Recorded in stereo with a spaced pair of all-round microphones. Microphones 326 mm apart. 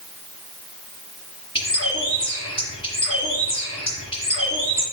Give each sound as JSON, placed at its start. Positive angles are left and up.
{"t": 1.6, "sound": "a bird", "side_deg": 15, "distance_m": 5.0}